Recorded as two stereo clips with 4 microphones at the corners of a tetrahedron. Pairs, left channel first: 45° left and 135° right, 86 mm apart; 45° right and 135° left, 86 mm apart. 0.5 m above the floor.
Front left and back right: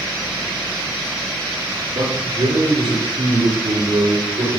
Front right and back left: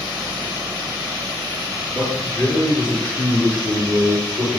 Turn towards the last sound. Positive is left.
turn(degrees=-125)